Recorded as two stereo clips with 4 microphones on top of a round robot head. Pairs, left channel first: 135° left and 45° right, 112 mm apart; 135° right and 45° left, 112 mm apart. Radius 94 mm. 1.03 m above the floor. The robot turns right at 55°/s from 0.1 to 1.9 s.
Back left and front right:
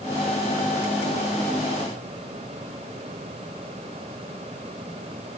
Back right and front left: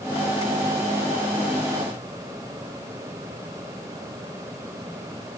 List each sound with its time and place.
Only background noise.